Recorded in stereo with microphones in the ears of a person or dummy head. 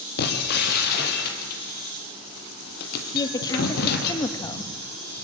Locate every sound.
0.2 s breaking glass: 55° left (ahead or behind), 3 m
3.1 s a woman speaking: 20° left (ahead or behind), 1.1 m